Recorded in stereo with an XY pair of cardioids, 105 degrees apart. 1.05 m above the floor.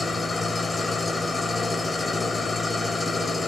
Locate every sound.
0.0 s an engine running: 20° left, 2 m